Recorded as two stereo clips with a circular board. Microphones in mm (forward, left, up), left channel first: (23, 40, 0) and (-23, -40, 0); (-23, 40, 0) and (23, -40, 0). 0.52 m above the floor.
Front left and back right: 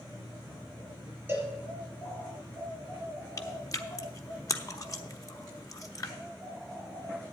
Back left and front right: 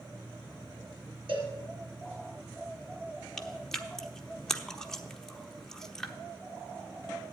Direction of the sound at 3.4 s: 40° left.